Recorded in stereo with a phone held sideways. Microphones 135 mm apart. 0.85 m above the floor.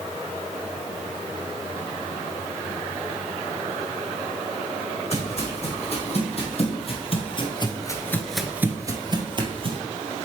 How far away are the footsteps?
About 3 m.